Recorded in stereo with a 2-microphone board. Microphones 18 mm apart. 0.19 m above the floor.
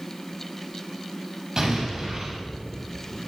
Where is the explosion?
30° right (ahead or behind), 6 m.